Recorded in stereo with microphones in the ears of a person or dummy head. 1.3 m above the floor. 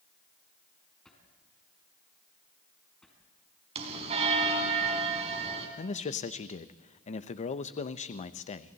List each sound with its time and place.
1.1 s a drawer: 5° left (ahead or behind), 5 m
3.8 s a bell: 35° right (ahead or behind), 3.5 m
5.8 s a man speaking: 35° left (ahead or behind), 0.9 m